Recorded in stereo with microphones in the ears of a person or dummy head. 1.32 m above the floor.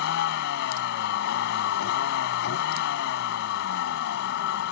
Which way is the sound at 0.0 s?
60° left (ahead or behind).